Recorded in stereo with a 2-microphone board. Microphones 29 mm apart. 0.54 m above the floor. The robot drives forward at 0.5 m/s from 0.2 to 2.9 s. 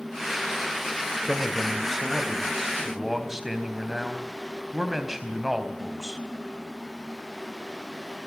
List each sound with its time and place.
1.2 s a man speaking: 10° right (ahead or behind), 3 m; by 6.2 s 5° right (ahead or behind), 3.5 m